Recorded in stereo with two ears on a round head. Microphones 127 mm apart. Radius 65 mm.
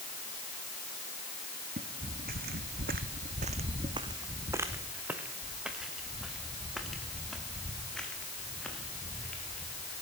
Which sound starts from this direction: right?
Footsteps, at 1.8 s.